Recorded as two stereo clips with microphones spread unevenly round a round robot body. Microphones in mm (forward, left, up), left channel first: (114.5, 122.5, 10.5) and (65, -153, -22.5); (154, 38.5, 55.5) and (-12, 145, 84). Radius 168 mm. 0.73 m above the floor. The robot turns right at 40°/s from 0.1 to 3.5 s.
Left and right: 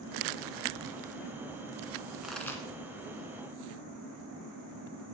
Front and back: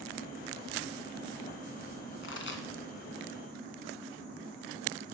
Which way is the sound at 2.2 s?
10° right.